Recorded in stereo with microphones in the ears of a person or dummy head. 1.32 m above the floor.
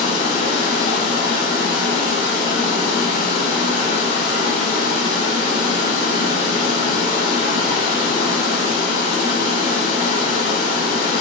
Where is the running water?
45° left (ahead or behind), 1.2 m.